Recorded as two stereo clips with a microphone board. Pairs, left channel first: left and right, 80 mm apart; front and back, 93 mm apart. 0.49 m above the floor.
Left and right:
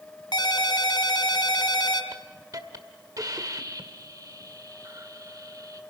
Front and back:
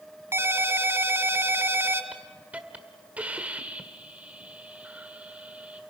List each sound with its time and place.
0.3 s a ringtone: 115° left, 1.6 m
2.1 s a hiss: 110° right, 1.6 m